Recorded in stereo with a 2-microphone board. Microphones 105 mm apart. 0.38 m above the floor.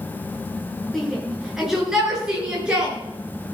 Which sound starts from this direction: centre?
A shout, at 0.9 s.